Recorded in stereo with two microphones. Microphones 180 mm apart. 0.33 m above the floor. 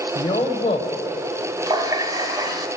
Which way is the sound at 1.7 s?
20° right (ahead or behind).